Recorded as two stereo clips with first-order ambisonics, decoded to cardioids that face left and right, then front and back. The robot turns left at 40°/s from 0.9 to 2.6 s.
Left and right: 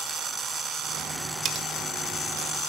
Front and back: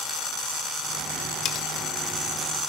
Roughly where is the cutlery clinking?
Ahead right.